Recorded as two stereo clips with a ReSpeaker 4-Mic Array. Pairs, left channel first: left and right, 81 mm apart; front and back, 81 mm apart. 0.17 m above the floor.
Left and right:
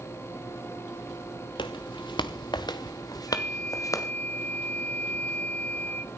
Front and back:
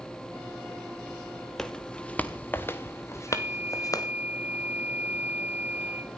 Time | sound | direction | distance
1.6 | footsteps | 85° left | 1.4 m
3.3 | a flute | 140° left | 0.9 m